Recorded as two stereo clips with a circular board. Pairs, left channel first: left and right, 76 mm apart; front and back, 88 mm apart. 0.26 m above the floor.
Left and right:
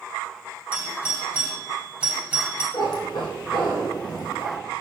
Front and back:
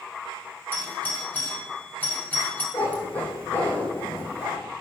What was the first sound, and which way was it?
A doorbell, 40° right.